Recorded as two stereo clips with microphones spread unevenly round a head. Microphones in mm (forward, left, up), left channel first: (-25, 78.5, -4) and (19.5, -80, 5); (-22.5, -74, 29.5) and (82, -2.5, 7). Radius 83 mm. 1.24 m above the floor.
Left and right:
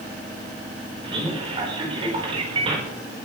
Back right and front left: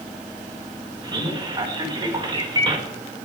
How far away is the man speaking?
About 5 m.